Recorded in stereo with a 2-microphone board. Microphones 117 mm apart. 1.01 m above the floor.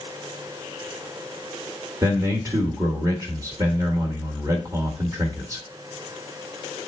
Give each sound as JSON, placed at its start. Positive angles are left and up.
{"t": 2.0, "sound": "a man speaking", "side_deg": -30, "distance_m": 1.4}